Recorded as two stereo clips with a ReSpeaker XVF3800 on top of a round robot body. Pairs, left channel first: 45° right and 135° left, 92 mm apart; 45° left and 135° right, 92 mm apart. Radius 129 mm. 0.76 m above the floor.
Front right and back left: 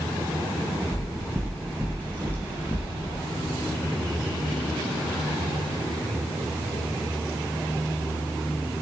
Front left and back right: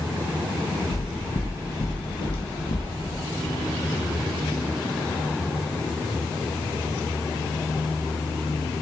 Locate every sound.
0.9 s footsteps: 50° left, 2.5 m; by 2.9 s 20° left, 1.9 m